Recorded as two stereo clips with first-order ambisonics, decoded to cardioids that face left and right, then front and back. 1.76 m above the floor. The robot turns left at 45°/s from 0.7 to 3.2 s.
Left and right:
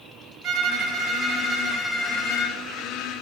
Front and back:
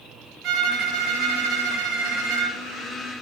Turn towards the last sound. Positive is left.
turn(degrees=105)